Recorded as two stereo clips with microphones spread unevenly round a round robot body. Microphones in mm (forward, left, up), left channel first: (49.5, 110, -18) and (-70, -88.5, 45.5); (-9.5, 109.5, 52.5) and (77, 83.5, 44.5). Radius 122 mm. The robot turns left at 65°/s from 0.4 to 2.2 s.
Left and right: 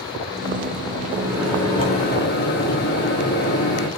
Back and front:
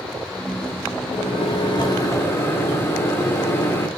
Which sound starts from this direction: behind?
A microwave, at 1.1 s.